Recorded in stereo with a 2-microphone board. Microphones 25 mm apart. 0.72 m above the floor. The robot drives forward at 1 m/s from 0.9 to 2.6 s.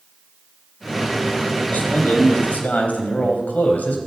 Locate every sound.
1.7 s a man speaking: 75° left (ahead or behind), 4 m; by 4.0 s 80° left, 4 m